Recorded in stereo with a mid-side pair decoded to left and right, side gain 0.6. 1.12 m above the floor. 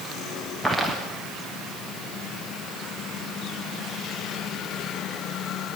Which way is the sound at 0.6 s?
Straight ahead.